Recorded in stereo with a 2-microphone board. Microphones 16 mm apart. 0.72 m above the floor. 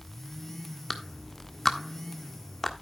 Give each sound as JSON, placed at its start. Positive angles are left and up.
{"t": 0.9, "sound": "a clap", "side_deg": 20, "distance_m": 1.4}